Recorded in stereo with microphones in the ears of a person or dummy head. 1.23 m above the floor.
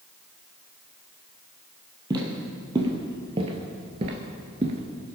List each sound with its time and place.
2.1 s footsteps: 20° right (ahead or behind), 2 m; by 5.2 s 25° right (ahead or behind), 1.3 m